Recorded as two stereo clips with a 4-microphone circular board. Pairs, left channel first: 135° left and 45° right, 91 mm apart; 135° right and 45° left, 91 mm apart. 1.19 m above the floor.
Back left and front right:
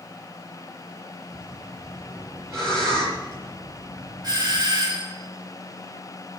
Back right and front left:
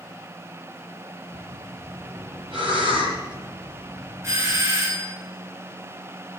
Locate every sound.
1.3 s breathing: 15° left, 7.5 m
4.2 s a doorbell: 10° right, 2.5 m